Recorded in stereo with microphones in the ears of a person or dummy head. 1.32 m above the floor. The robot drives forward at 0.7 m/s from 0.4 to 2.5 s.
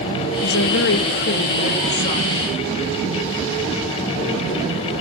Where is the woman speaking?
75° left (ahead or behind), 1.3 m; by 2.5 s 35° left (ahead or behind), 2 m.